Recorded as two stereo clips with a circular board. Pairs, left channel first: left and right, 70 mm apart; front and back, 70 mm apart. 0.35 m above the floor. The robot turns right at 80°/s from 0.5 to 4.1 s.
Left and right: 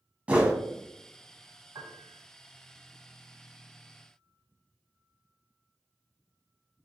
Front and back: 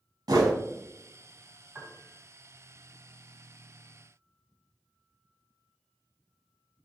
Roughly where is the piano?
Right.